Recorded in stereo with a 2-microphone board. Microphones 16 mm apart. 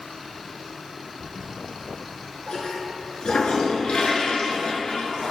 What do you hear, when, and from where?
1.2 s a toilet flushing: 70° left (ahead or behind), 1.0 m